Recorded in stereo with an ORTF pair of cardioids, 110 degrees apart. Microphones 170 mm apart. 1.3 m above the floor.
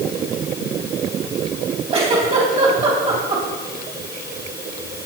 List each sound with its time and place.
1.9 s a giggle: 35° right, 4 m